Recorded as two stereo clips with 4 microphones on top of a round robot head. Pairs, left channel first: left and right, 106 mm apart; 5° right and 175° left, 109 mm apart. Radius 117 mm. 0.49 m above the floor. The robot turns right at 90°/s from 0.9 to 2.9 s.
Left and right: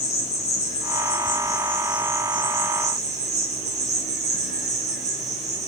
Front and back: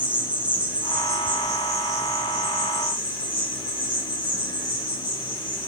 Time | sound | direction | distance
0.0 | an insect | 95° left | 3 m